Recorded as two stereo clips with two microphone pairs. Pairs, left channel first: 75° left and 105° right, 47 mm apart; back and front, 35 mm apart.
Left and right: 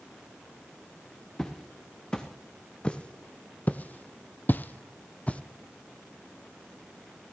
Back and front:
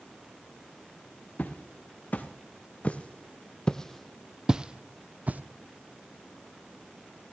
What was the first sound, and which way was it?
Footsteps, 155° left.